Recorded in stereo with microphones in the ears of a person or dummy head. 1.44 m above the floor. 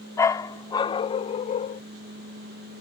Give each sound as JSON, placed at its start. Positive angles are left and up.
{"t": 0.2, "sound": "a dog barking", "side_deg": 15}